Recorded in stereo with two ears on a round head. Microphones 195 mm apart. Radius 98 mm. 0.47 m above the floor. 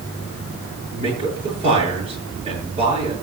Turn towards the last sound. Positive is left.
turn(degrees=-25)  # may be behind; listen again after turning